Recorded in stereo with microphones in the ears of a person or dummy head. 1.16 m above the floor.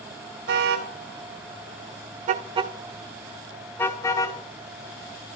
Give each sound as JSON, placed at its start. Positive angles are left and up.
{"t": 0.5, "sound": "a car horn", "side_deg": -65, "distance_m": 2.0}